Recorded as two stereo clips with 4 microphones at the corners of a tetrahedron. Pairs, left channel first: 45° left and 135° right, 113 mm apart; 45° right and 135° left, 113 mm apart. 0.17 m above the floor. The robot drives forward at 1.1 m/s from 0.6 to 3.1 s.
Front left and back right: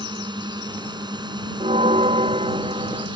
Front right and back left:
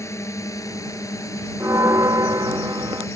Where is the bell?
160° right; by 3.1 s 170° right.